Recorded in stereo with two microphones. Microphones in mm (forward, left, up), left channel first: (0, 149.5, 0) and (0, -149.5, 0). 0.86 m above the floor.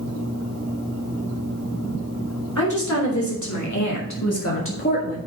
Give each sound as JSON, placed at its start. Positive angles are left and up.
{"t": 2.6, "sound": "a woman speaking", "side_deg": 70, "distance_m": 3.5}